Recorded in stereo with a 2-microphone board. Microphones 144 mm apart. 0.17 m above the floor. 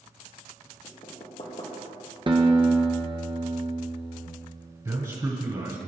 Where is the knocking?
45° left (ahead or behind), 3.5 m.